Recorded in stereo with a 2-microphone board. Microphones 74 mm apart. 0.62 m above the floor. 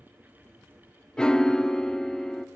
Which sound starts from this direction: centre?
A piano, at 1.2 s.